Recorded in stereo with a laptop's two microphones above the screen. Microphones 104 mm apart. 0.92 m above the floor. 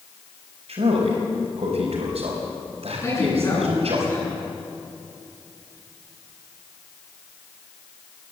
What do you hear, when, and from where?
0.7 s a man speaking: 80° right, 4 m
3.0 s a man speaking: 25° left (ahead or behind), 9 m